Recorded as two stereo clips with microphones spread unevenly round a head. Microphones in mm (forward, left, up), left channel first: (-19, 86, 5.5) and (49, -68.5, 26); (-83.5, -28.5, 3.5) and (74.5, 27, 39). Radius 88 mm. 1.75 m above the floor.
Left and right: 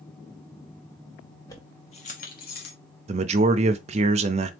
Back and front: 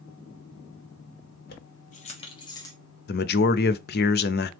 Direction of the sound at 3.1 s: 125° right.